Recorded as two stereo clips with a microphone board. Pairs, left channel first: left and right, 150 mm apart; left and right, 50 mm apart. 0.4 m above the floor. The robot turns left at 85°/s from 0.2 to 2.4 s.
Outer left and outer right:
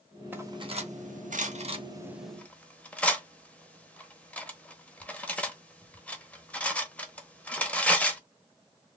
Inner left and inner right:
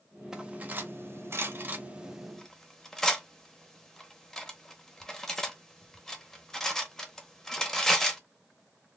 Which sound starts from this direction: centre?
Cutlery clinking, at 0.3 s.